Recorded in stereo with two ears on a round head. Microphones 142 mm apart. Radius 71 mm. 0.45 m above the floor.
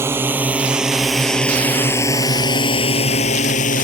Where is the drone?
15° right (ahead or behind); by 3.9 s 55° left (ahead or behind).